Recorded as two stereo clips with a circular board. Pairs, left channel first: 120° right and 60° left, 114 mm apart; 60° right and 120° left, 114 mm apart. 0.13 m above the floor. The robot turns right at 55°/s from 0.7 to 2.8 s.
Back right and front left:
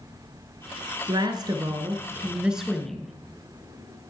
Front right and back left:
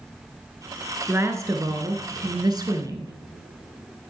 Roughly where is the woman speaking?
Ahead left.